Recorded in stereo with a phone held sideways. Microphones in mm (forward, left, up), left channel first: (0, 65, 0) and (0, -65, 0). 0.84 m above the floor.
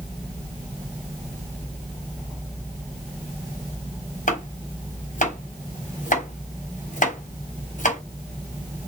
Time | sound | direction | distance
4.3 | chopping | 65° left (ahead or behind) | 3.5 m